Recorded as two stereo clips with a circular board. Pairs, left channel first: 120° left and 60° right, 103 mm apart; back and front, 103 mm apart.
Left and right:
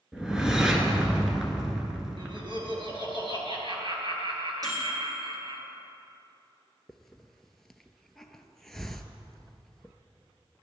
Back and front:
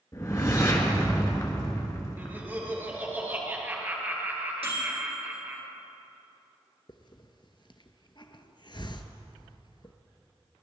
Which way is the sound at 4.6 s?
10° right.